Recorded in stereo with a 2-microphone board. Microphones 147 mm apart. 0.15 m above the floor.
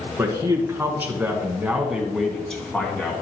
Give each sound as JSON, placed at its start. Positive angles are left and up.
{"t": 0.2, "sound": "a man speaking", "side_deg": -20, "distance_m": 2.5}